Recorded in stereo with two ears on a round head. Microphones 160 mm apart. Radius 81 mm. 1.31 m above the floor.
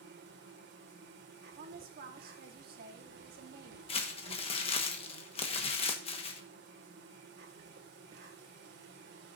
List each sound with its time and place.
0.0 s an insect: 60° right (ahead or behind), 1.7 m
1.6 s a woman speaking: 55° right (ahead or behind), 1.4 m
3.9 s crumpling: 30° left (ahead or behind), 1.2 m